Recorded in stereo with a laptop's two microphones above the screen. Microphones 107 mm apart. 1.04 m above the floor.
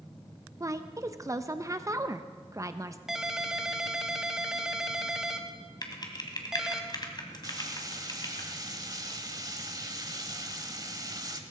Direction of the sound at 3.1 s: 5° right (ahead or behind).